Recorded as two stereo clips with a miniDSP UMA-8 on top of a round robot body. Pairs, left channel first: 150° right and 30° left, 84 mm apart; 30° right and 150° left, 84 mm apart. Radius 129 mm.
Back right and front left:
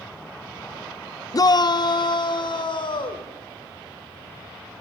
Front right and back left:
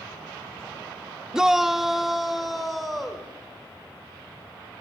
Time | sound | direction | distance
1.3 | a shout | 130° right | 0.7 m